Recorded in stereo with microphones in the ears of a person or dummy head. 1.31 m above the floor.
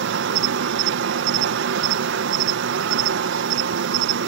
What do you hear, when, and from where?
0.0 s an insect: 65° right (ahead or behind)